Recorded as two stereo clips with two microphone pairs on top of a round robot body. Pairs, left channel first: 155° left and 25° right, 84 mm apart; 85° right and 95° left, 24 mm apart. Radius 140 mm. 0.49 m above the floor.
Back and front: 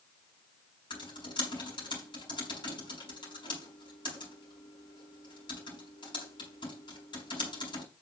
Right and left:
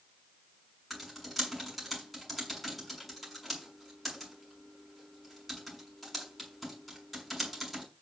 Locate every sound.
0.9 s typing on a keyboard: 175° right, 6.5 m